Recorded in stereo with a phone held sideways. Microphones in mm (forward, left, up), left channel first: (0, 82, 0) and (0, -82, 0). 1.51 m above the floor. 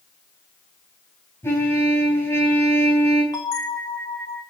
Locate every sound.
1.4 s a trumpet: 15° left (ahead or behind), 4 m
3.3 s a bell: 25° left (ahead or behind), 1.8 m